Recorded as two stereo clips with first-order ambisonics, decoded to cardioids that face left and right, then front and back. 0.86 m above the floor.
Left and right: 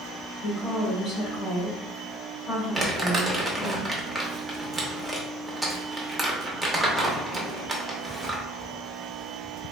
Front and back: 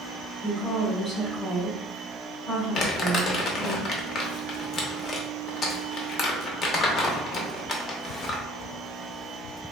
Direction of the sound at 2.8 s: 5° right.